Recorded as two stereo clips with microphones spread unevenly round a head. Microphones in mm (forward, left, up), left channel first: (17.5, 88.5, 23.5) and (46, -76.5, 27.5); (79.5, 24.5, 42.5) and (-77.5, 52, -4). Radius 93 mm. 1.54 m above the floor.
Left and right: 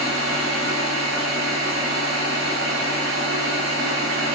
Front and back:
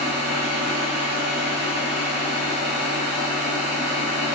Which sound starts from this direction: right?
A machine running, at 0.0 s.